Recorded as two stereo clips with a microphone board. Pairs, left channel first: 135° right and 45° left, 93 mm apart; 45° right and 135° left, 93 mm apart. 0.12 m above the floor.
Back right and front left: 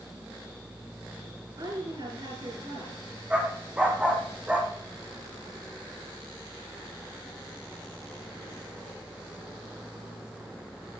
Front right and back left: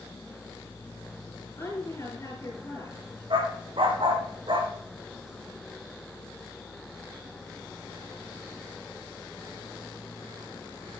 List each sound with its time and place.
1.6 s a woman speaking: 10° left, 9.5 m
3.3 s a dog barking: 120° left, 3 m